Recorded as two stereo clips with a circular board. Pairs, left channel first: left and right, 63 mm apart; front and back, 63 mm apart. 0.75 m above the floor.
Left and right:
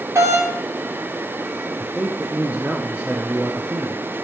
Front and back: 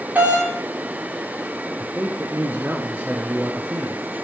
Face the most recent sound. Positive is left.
turn(degrees=-145)